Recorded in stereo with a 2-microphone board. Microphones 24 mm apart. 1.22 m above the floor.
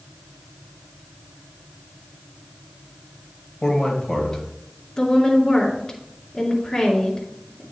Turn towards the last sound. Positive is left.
turn(degrees=30)  # may be behind; listen again after turning